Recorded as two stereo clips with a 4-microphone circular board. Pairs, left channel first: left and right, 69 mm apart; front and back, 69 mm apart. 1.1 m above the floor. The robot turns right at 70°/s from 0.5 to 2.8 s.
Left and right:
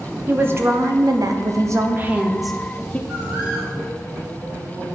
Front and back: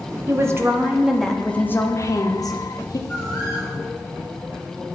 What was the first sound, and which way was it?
A woman speaking, 140° right.